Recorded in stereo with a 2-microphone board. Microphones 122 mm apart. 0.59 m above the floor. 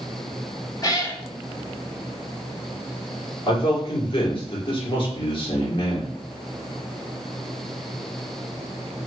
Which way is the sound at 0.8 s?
30° left (ahead or behind).